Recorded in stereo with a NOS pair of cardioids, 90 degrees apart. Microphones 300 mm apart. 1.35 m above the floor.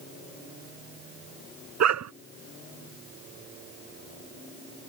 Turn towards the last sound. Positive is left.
turn(degrees=-55)